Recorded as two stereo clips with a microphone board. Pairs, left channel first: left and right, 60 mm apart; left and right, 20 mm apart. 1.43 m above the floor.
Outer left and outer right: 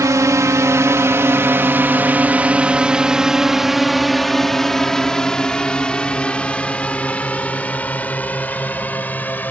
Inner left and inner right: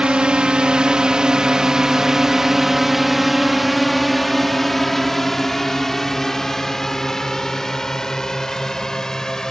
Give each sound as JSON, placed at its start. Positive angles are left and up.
{"t": 0.0, "sound": "a drone", "side_deg": -70}